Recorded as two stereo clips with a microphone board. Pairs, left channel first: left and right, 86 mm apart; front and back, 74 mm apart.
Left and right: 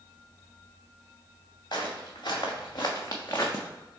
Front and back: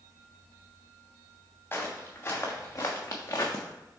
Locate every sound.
1.7 s footsteps: 55° left, 1.6 m; by 3.6 s 30° left, 0.7 m